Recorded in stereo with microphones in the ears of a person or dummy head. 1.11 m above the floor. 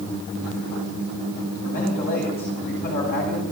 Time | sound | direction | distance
1.6 | a man speaking | 45° left (ahead or behind) | 8.5 m